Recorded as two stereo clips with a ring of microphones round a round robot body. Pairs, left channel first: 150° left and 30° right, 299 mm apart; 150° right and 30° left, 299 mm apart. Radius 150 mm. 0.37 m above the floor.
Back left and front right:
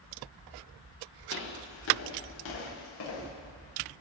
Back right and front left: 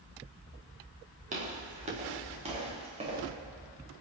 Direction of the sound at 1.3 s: 100° left.